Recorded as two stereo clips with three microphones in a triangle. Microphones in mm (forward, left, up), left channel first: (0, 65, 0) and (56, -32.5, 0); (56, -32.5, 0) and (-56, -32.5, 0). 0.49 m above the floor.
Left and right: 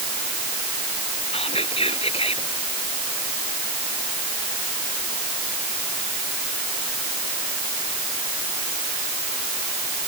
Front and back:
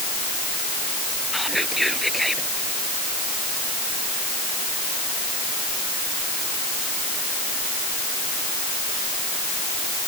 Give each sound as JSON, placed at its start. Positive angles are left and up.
{"t": 1.3, "sound": "whispering", "azimuth_deg": 90}